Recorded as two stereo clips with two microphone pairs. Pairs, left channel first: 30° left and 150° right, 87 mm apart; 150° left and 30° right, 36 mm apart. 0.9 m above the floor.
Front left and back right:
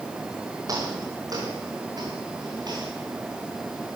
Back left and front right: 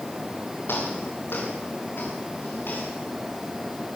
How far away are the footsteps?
About 8.5 m.